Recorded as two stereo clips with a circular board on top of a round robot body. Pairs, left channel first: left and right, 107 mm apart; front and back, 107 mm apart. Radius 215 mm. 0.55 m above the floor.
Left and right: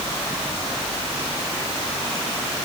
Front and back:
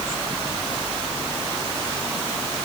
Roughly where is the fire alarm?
I don't hear a fire alarm.